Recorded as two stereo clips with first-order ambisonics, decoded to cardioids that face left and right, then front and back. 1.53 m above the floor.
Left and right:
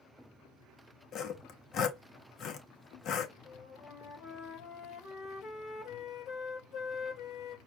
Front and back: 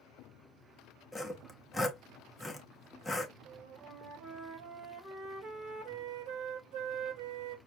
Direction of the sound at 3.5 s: 140° left.